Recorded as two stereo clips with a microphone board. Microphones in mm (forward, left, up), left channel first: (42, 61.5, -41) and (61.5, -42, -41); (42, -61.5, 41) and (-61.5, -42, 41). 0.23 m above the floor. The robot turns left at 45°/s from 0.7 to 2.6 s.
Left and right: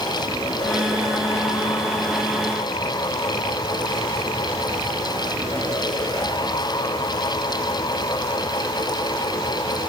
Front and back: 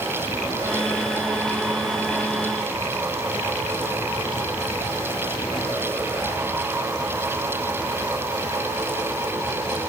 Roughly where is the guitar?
No guitar in this recording.